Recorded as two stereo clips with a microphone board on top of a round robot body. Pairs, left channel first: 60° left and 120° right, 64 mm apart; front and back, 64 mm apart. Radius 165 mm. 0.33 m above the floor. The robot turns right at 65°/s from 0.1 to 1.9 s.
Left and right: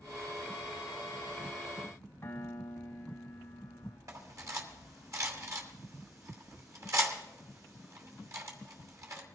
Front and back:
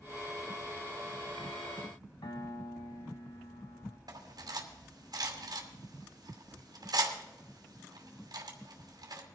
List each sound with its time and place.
2.2 s a piano: straight ahead, 1.8 m
4.1 s cutlery clinking: 160° right, 2.5 m